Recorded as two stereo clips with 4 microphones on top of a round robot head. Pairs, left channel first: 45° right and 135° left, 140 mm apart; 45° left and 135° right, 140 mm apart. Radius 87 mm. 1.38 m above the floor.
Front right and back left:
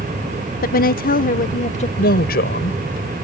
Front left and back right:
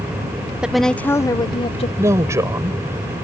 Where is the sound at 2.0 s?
65° right.